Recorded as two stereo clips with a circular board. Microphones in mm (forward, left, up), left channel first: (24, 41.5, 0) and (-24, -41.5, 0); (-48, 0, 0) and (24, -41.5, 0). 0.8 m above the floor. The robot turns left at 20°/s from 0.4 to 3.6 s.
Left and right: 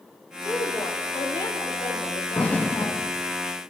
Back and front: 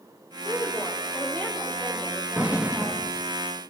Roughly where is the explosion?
Ahead.